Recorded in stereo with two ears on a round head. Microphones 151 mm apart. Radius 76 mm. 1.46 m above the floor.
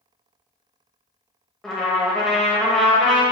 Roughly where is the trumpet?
Centre.